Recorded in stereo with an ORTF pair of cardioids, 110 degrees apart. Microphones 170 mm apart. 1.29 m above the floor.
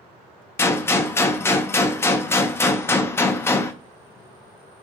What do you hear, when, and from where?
0.6 s a gunshot: 15° left, 0.5 m